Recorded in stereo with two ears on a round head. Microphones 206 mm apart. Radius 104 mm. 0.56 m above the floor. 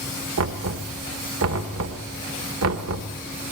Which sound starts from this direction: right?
Knocking, at 0.4 s.